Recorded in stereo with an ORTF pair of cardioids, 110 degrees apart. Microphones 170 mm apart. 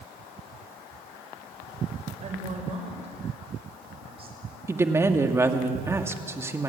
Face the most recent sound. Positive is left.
turn(degrees=-15)